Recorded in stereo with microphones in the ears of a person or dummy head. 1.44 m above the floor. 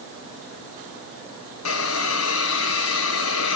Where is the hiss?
85° left, 0.9 m.